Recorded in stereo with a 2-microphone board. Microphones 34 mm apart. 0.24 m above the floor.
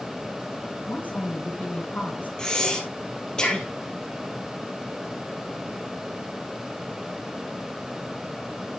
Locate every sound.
0.9 s a woman speaking: 55° left (ahead or behind), 3 m
2.4 s breathing: 25° left (ahead or behind), 3 m